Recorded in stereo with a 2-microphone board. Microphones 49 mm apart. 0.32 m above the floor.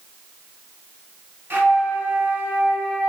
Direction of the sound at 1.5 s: 45° right (ahead or behind).